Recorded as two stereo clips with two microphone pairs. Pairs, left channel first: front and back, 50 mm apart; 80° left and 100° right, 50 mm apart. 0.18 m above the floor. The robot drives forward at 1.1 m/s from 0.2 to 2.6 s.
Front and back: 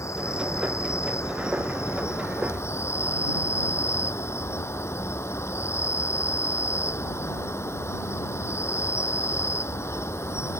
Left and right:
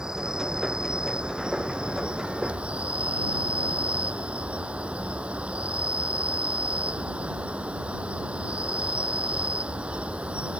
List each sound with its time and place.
0.0 s an insect: 20° right; by 10.6 s 30° right